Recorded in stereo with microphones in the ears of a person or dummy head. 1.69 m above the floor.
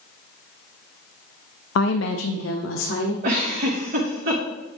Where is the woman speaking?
70° left (ahead or behind), 0.5 m; by 3.1 s 85° left, 1.3 m.